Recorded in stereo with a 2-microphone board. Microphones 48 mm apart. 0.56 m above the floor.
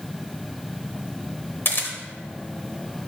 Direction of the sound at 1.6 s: 50° left (ahead or behind).